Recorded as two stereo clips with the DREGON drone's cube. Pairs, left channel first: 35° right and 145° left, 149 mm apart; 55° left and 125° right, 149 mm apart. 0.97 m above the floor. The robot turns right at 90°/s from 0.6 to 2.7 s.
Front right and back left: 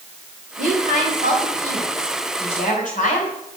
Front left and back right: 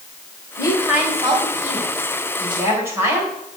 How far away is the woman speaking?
About 4.5 m.